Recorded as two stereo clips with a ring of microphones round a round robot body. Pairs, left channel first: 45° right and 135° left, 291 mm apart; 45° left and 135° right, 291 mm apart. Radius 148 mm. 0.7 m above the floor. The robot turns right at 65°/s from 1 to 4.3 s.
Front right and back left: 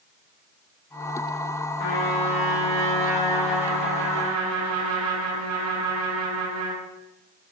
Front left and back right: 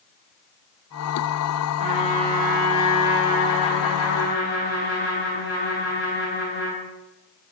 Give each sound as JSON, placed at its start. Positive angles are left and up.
{"t": 1.8, "sound": "a trumpet", "azimuth_deg": -65, "distance_m": 4.5}